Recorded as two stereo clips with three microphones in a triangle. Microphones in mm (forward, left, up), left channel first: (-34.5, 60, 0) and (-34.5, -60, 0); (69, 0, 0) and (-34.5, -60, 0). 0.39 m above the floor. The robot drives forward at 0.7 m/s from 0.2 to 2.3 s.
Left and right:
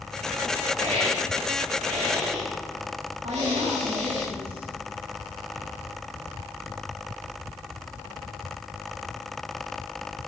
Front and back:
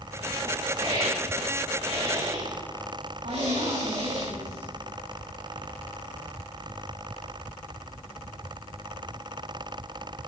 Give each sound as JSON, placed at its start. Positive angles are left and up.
{"t": 0.8, "sound": "a hiss", "azimuth_deg": -105, "distance_m": 9.0}
{"t": 3.2, "sound": "a woman speaking", "azimuth_deg": -125, "distance_m": 3.5}